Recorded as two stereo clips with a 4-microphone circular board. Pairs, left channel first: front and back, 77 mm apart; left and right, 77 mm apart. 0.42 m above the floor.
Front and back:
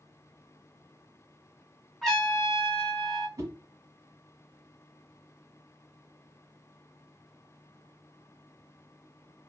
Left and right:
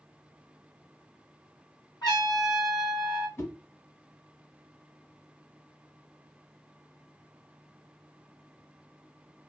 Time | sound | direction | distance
2.0 | a trumpet | 85° left | 2 m
3.4 | a whoosh | 140° left | 1.4 m